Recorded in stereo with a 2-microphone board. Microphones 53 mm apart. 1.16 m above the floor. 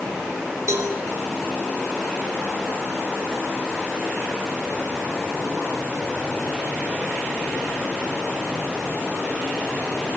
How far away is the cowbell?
About 4 m.